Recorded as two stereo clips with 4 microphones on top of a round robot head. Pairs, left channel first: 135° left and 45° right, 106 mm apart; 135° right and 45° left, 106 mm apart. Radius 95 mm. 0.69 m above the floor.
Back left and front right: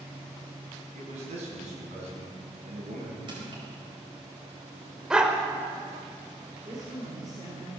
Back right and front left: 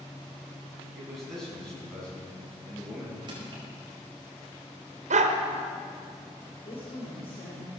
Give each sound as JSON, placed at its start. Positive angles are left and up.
{"t": 0.9, "sound": "a man speaking", "azimuth_deg": -45, "distance_m": 5.5}
{"t": 3.3, "sound": "crushing", "azimuth_deg": 0, "distance_m": 4.5}
{"t": 5.1, "sound": "a dog barking", "azimuth_deg": 40, "distance_m": 1.3}
{"t": 6.7, "sound": "a woman speaking", "azimuth_deg": -100, "distance_m": 3.0}